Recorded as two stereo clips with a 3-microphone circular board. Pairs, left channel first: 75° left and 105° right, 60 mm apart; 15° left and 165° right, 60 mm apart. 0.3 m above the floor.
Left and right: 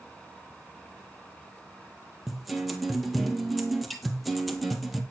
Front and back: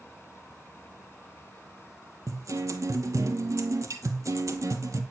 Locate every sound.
2.3 s a guitar: 165° left, 1.8 m